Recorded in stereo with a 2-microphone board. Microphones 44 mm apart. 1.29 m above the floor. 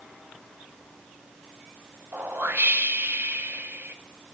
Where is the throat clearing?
No throat clearing in this recording.